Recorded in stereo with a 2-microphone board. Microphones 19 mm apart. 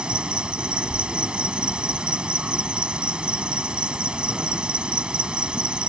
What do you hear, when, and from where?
0.0 s an insect: 65° right (ahead or behind)